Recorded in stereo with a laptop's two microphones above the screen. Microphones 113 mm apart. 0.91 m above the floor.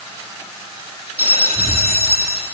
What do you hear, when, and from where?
1.2 s a bell: 65° right (ahead or behind), 2.5 m